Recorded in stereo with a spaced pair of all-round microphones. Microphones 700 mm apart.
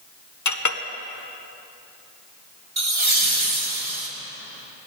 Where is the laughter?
40° right (ahead or behind), 1.7 m.